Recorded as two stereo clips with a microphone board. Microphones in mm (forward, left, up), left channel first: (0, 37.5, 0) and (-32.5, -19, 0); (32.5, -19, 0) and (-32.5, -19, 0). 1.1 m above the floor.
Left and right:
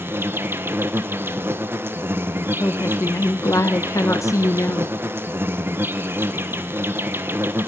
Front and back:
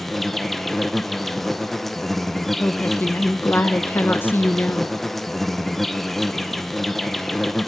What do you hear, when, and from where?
0.0 s an insect: 85° right, 1.1 m
2.6 s a woman speaking: 50° left, 1.0 m